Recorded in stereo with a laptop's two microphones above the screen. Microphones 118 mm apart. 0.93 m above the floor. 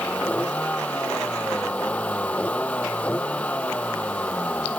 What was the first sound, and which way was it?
A vehicle, 10° left (ahead or behind).